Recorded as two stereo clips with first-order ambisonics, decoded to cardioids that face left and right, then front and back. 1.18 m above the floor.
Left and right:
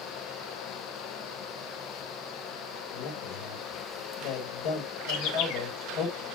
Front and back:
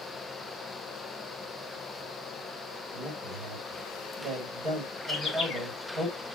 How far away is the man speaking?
About 5.5 m.